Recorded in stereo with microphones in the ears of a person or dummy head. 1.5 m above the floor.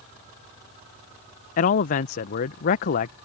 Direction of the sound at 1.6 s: 50° left (ahead or behind).